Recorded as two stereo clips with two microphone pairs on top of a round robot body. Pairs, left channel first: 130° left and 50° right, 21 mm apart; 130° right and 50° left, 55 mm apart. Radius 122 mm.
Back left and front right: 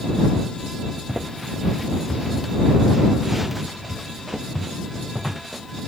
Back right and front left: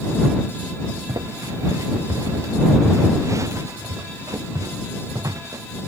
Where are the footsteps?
25° left.